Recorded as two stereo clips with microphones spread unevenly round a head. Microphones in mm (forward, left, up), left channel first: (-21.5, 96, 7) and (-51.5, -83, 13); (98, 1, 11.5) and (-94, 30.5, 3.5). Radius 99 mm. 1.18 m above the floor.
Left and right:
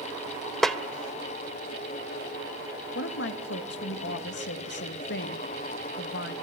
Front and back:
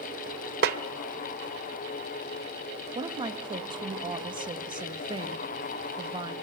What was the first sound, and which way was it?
A snare drum, 170° left.